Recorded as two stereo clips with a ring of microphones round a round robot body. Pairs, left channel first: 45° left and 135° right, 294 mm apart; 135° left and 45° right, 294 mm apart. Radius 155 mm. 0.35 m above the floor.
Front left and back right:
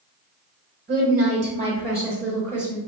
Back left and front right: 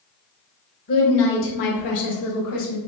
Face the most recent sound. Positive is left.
turn(degrees=135)